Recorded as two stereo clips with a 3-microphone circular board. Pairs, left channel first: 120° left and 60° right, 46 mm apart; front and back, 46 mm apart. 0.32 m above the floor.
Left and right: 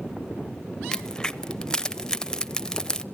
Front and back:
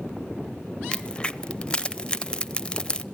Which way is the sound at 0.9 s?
55° left.